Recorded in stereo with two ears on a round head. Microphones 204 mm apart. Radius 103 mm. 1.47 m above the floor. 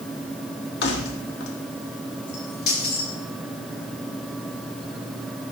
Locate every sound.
0.8 s keys jangling: 50° left (ahead or behind), 1.6 m; by 3.1 s 40° left (ahead or behind), 3 m